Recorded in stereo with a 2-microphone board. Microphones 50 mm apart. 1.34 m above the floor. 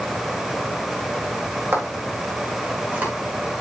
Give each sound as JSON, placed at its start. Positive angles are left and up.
{"t": 1.7, "sound": "footsteps", "side_deg": -45, "distance_m": 4.5}